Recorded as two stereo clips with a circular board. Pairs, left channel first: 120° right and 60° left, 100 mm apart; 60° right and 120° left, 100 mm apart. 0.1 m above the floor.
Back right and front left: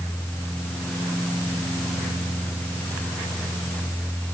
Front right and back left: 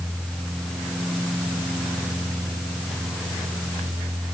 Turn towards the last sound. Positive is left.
No sound to turn to.